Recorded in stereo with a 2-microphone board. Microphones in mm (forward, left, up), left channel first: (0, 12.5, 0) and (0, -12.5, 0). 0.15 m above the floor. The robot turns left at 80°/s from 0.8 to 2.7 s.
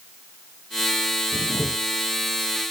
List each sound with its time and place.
1.3 s a camera shutter: 100° left, 4 m; by 1.7 s 65° left, 4 m